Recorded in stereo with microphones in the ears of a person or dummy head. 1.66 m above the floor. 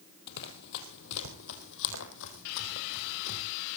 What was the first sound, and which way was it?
Running footsteps, 60° left (ahead or behind).